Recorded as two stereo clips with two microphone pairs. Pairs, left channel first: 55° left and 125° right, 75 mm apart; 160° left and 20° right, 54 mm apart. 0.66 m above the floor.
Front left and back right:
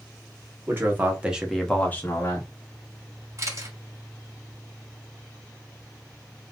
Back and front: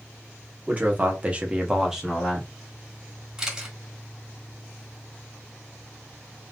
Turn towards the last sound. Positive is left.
turn(degrees=-90)